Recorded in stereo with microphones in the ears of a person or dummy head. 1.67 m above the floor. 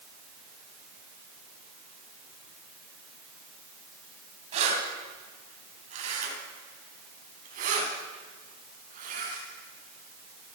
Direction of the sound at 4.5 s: 40° right (ahead or behind).